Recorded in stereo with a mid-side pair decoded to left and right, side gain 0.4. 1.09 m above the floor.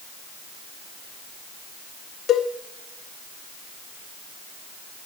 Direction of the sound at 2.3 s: 60° left.